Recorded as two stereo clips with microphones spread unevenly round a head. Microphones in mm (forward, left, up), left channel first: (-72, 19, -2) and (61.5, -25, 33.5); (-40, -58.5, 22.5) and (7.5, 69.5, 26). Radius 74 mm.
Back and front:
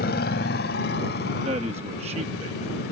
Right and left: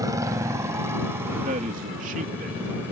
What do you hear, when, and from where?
0.0 s a motorcycle: 135° left; by 2.9 s 145° left
1.4 s a man speaking: 30° left